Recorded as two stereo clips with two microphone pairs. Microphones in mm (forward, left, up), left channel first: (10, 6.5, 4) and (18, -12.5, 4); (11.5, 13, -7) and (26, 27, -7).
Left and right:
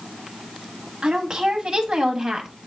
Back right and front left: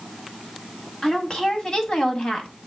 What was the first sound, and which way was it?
A woman speaking, 85° right.